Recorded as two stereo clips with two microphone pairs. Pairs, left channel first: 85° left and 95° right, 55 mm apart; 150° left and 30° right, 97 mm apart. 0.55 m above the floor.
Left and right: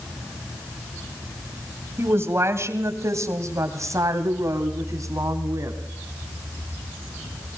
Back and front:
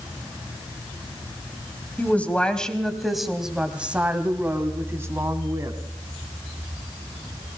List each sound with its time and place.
2.0 s a woman speaking: 135° right, 3 m; by 5.8 s 85° right, 3.5 m